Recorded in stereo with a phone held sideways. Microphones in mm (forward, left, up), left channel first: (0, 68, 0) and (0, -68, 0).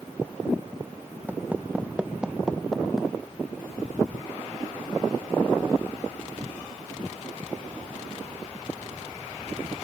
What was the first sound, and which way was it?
Footsteps, 10° right (ahead or behind).